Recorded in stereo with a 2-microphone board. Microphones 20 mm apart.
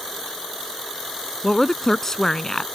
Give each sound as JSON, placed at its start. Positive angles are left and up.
{"t": 1.4, "sound": "a woman speaking", "side_deg": 20}